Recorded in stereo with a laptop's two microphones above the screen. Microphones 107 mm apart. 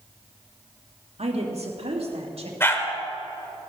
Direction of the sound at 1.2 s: 75° right (ahead or behind).